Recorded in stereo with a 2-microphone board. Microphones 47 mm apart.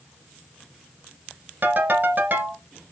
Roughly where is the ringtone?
Right.